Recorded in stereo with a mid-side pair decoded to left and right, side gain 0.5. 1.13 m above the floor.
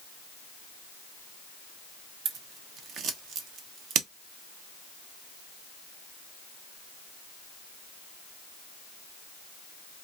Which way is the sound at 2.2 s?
65° right.